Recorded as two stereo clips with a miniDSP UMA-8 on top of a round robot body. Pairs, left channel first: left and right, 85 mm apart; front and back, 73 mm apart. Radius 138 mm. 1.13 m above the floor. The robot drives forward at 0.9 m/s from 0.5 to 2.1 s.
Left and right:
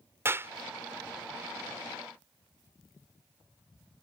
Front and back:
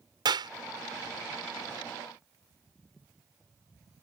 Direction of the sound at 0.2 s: 155° right.